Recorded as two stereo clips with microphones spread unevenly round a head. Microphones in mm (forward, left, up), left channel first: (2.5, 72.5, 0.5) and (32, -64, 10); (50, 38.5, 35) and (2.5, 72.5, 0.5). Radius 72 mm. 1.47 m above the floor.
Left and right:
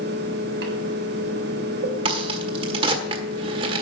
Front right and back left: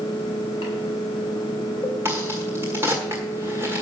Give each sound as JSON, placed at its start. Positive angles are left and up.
{"t": 0.0, "sound": "a fan", "azimuth_deg": -95, "distance_m": 2.5}
{"t": 2.0, "sound": "a crack", "azimuth_deg": -120, "distance_m": 1.4}